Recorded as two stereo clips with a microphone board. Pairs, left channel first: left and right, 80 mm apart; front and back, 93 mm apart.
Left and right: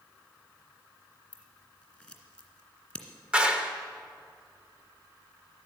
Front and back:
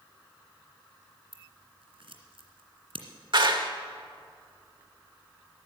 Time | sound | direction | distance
1.3 | scissors | 170° left | 1.9 m
3.3 | a clap | 165° right | 1.2 m